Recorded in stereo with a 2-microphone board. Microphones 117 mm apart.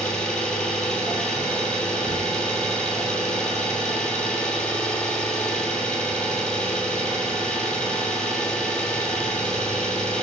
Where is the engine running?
5° left (ahead or behind), 1.1 m.